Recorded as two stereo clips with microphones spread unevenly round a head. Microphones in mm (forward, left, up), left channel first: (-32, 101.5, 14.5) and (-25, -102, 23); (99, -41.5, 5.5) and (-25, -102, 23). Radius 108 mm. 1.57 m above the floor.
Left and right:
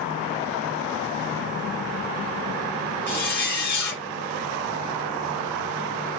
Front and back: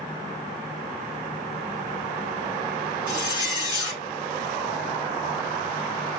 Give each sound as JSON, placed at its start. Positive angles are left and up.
{"t": 3.1, "sound": "a zipper", "azimuth_deg": 175, "distance_m": 1.1}